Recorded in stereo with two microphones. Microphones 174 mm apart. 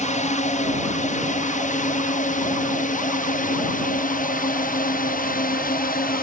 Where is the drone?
40° left (ahead or behind); by 6.2 s 50° left (ahead or behind).